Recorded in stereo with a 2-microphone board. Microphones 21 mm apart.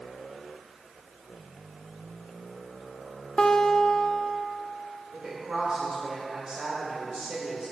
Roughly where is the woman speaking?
Right.